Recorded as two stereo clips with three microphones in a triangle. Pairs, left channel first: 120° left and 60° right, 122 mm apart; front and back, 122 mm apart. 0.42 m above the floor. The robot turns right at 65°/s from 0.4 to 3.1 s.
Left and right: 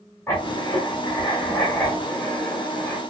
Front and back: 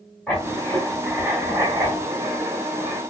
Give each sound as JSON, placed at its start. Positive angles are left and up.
{"t": 0.3, "sound": "writing", "azimuth_deg": 75, "distance_m": 1.4}